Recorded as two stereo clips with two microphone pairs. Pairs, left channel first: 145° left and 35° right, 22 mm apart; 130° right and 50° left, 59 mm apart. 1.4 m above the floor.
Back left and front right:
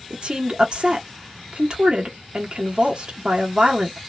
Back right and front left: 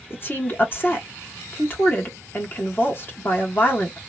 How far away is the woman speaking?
About 1.1 m.